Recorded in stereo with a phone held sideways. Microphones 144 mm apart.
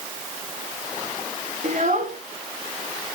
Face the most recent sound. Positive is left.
turn(degrees=-65)  # may be behind; listen again after turning